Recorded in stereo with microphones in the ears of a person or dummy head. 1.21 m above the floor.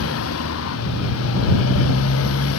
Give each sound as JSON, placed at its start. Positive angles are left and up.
{"t": 0.0, "sound": "a motorcycle", "side_deg": 90}